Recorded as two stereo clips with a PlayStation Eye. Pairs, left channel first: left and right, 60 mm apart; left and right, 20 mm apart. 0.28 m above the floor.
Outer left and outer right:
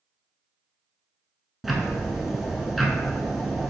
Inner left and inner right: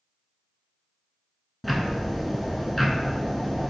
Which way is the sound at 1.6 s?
Centre (ahead or behind).